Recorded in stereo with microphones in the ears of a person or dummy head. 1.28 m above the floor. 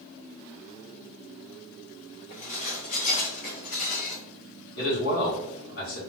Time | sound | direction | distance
2.3 | dishes clattering | 45° left (ahead or behind) | 1.0 m
4.8 | a man speaking | 60° left (ahead or behind) | 1.6 m